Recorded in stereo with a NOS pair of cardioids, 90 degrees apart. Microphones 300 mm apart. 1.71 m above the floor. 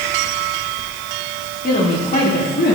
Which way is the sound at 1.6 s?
25° left.